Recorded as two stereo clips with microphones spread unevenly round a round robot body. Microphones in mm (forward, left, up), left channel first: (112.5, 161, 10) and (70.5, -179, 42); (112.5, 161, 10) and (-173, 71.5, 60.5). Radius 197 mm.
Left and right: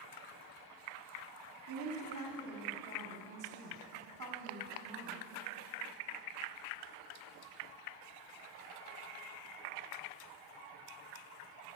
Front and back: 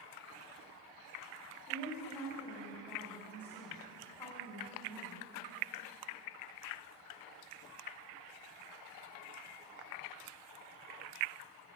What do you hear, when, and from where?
1.7 s a woman speaking: 60° right, 1.8 m